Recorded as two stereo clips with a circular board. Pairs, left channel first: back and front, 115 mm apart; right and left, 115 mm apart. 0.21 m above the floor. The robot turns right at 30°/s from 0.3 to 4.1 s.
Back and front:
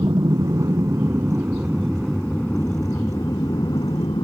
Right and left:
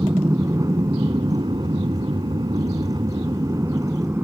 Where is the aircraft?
40° left; by 4.2 s 150° left.